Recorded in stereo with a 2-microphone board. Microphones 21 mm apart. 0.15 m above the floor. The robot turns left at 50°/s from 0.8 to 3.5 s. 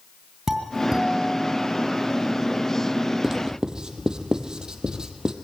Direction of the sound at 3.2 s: 20° right (ahead or behind).